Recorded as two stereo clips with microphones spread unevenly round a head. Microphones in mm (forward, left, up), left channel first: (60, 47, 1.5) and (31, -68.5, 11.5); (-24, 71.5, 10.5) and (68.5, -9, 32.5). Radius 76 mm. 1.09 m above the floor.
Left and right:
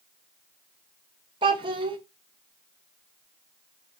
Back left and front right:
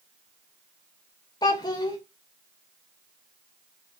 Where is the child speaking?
150° right, 0.5 m.